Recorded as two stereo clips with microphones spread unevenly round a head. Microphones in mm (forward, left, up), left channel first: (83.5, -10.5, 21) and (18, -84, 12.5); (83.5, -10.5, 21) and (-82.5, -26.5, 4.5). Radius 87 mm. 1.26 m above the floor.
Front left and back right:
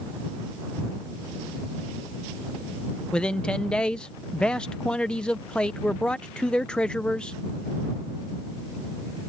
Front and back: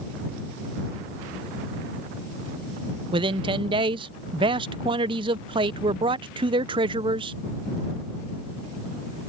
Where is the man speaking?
135° left.